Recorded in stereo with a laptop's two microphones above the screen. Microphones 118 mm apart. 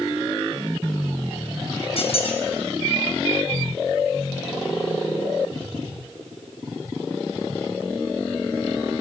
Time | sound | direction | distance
2.0 | a squeak | 60° left (ahead or behind) | 1.0 m